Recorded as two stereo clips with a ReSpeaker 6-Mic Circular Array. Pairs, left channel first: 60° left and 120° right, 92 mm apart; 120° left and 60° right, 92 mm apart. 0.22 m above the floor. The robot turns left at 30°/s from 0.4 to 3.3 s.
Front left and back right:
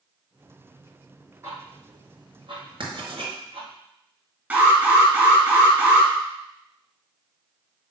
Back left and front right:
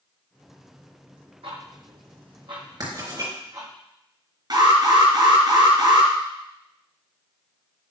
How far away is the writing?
About 3.5 m.